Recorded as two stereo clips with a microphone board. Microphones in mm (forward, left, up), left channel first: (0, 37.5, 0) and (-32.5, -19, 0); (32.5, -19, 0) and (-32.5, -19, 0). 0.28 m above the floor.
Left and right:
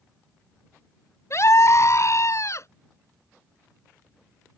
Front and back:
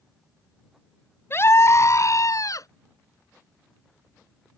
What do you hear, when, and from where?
1.3 s a scream: 40° left; by 2.7 s 25° left